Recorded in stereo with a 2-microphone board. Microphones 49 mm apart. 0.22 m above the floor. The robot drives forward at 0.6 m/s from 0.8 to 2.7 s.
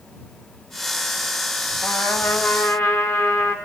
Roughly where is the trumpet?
Left.